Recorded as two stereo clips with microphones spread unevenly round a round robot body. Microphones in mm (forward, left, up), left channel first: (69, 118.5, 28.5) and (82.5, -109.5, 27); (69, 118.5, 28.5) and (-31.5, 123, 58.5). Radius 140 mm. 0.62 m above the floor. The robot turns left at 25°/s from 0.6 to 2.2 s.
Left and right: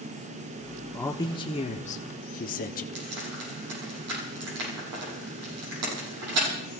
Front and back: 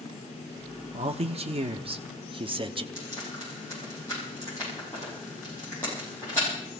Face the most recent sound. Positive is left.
turn(degrees=-80)